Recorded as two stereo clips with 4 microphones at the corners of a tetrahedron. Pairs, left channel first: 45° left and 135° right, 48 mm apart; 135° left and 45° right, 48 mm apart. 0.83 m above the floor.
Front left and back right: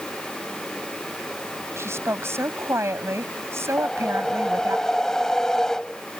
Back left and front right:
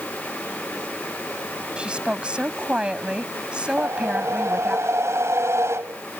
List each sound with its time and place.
1.8 s a woman speaking: 110° right
3.8 s a whoosh: 35° right